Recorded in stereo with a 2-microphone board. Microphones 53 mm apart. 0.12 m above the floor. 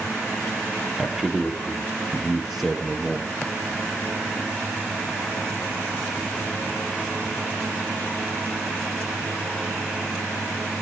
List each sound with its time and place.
1.0 s a man speaking: 5° right (ahead or behind), 3 m